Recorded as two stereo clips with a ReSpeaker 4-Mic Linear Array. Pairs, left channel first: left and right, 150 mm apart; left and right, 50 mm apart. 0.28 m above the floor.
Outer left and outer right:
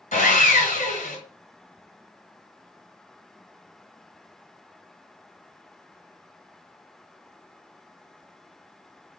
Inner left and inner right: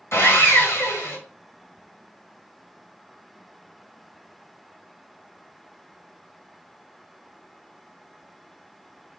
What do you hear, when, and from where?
0.1 s sawing: 55° left (ahead or behind), 1.5 m